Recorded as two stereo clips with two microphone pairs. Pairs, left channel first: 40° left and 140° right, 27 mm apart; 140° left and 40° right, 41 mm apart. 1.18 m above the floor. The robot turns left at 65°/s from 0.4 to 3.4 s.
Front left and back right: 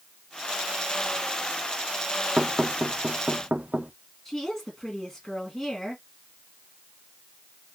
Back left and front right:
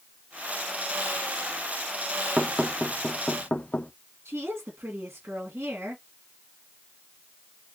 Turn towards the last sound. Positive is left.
turn(degrees=-30)